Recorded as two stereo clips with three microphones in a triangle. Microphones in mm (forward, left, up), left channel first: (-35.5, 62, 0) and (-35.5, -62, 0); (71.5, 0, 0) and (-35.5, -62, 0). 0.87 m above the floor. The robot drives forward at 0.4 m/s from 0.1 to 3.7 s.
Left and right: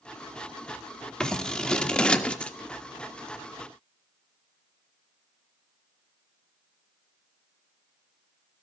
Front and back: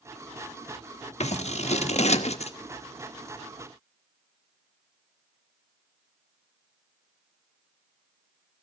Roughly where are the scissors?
Ahead.